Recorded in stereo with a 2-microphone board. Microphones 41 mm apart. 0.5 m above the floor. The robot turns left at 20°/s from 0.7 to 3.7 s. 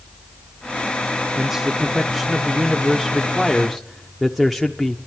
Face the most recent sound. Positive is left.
turn(degrees=0)  # may be behind; listen again after turning